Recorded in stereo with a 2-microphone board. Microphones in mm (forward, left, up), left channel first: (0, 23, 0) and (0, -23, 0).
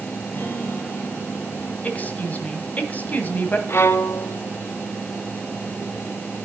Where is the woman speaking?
35° left (ahead or behind), 1.7 m.